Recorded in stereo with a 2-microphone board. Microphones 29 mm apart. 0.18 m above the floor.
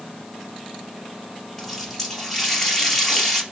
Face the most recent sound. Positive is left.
turn(degrees=10)  # may be behind; listen again after turning